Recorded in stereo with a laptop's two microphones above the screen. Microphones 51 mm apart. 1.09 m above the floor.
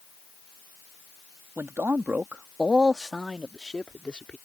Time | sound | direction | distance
1.6 | a man speaking | 55° right (ahead or behind) | ?